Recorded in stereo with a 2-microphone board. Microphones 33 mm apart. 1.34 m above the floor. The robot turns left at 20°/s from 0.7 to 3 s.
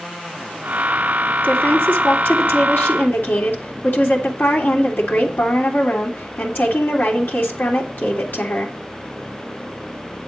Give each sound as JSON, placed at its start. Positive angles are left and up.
{"t": 1.4, "sound": "a woman speaking", "azimuth_deg": 120, "distance_m": 2.5}